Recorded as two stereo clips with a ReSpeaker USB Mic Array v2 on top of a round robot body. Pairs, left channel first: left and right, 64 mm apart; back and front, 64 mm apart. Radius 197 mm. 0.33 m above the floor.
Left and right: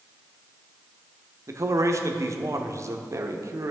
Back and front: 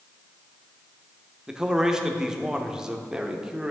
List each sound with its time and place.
1.5 s a man speaking: 80° right, 1.3 m